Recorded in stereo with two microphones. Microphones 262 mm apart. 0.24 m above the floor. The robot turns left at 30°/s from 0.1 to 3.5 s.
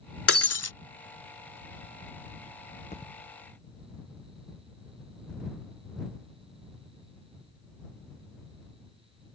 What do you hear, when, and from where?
0.3 s breaking glass: 60° left (ahead or behind); by 0.7 s 75° left (ahead or behind)
2.9 s a thud: 25° left (ahead or behind); by 3.1 s 30° left (ahead or behind)